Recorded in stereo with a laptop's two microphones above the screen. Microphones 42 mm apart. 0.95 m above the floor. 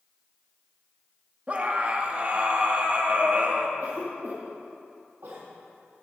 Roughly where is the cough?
Right.